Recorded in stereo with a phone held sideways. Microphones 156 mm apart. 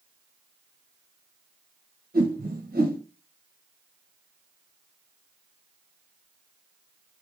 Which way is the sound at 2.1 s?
75° right (ahead or behind).